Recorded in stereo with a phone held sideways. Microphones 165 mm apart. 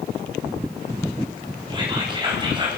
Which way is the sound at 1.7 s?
25° right (ahead or behind).